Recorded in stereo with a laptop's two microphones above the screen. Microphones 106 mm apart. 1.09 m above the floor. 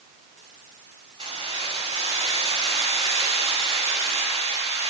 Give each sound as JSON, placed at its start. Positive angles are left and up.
{"t": 1.2, "sound": "keys jangling", "side_deg": -45, "distance_m": 4.5}